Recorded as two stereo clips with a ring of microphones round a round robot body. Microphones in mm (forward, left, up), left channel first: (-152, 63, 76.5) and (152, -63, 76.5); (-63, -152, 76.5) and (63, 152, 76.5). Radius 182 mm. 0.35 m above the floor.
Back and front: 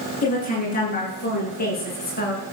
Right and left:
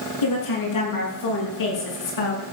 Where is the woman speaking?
135° right, 7.5 m; by 2.4 s 140° right, 5.5 m.